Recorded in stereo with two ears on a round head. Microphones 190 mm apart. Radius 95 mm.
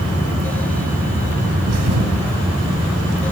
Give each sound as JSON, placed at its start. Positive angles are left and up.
{"t": 1.7, "sound": "a thud", "side_deg": -85, "distance_m": 2.0}